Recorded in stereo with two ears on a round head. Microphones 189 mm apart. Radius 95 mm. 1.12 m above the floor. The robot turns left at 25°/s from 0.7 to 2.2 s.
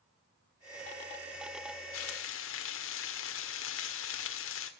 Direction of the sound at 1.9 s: 75° left (ahead or behind).